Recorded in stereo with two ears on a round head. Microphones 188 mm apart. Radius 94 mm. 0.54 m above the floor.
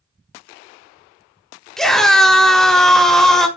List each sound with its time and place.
1.8 s a scream: centre (ahead or behind), 1.0 m